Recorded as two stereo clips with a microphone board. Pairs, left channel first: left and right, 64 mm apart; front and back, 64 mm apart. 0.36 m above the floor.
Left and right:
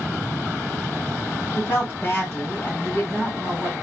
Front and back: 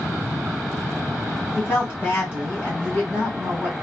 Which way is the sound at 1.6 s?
45° left.